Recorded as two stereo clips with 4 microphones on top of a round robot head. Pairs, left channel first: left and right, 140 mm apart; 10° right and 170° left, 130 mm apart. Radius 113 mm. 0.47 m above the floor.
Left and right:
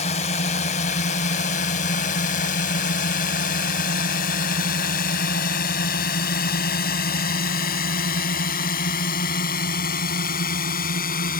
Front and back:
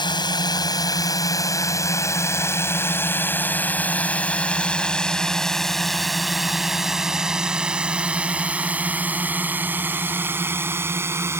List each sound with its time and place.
0.0 s a drone: 45° left; by 11.4 s 100° left